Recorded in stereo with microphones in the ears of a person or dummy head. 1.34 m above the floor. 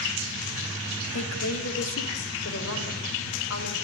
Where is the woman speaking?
75° left (ahead or behind), 3 m; by 3.7 s 85° left, 7 m.